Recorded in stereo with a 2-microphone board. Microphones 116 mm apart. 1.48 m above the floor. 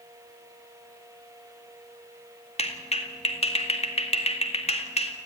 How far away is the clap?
About 2 m.